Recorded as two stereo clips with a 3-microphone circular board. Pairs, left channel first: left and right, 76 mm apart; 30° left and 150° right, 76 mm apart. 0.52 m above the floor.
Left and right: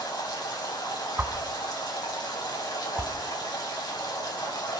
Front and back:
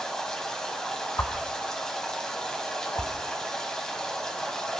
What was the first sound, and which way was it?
Running water, 110° left.